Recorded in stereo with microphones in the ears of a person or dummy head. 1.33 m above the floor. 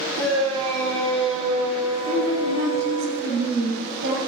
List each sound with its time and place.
0.2 s a shout: 35° right (ahead or behind), 4 m
2.0 s a woman speaking: 80° right, 7.5 m